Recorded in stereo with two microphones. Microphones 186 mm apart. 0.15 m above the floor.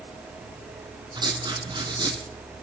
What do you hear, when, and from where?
1.1 s writing: 25° right (ahead or behind), 2 m